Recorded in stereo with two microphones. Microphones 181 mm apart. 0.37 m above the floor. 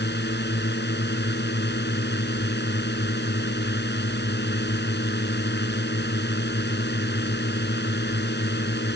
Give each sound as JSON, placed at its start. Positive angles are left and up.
{"t": 0.0, "sound": "a drone", "side_deg": 75}